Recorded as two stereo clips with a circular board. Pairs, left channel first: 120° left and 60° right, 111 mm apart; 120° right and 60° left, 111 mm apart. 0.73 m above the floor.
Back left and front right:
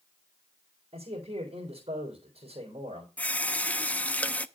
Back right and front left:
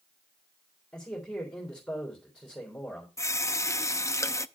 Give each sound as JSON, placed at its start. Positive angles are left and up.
{"t": 0.9, "sound": "a man speaking", "azimuth_deg": -40, "distance_m": 3.0}
{"t": 3.2, "sound": "a running tap", "azimuth_deg": -170, "distance_m": 0.5}